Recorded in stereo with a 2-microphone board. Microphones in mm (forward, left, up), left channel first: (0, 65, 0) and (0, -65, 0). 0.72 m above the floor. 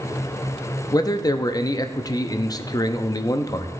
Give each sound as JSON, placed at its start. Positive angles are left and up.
{"t": 0.9, "sound": "a man speaking", "side_deg": 30, "distance_m": 0.5}